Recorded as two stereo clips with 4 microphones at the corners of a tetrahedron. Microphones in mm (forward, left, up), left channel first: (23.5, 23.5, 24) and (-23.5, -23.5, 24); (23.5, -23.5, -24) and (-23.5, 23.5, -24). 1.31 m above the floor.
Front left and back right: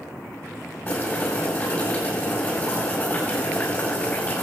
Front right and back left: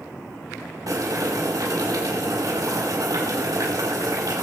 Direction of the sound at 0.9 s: 105° left.